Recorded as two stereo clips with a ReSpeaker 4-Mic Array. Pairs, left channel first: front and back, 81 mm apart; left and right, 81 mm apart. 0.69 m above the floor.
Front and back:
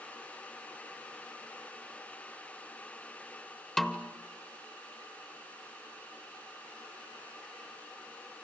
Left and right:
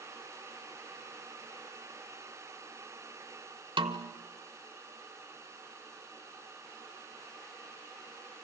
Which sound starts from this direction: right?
A snare drum, at 3.8 s.